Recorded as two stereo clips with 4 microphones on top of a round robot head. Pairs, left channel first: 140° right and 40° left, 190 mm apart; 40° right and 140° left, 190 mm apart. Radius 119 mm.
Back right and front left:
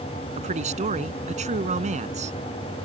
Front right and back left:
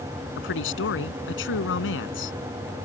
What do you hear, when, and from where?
0.4 s a man speaking: 15° right